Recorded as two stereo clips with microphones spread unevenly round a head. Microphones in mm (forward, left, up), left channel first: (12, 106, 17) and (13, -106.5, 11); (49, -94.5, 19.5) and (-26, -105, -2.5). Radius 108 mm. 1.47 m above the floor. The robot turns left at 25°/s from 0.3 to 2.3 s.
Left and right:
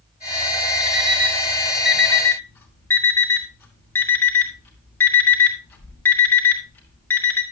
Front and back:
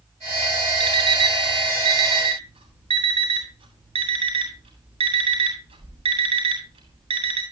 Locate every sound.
0.8 s an alarm clock: 150° right, 2.5 m; by 7.4 s 175° left, 2.5 m